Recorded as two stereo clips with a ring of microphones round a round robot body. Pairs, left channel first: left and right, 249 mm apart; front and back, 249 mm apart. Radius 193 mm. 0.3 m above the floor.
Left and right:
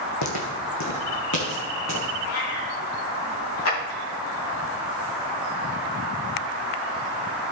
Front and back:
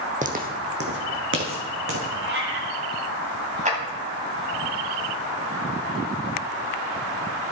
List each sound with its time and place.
0.2 s footsteps: 120° left, 1.1 m; by 2.1 s 145° left, 2 m
2.2 s a cat meowing: 140° left, 1.9 m
3.6 s a clap: 120° left, 2.5 m